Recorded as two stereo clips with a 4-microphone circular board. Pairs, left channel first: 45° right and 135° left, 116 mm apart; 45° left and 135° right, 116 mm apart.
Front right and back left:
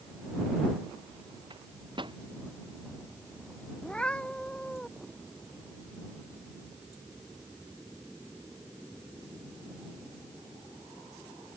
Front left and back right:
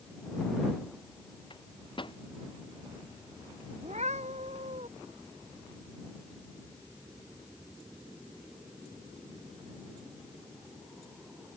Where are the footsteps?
No footsteps in this recording.